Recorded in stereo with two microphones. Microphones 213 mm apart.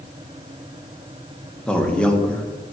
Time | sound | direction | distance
1.7 | a man speaking | 5° left (ahead or behind) | 1.3 m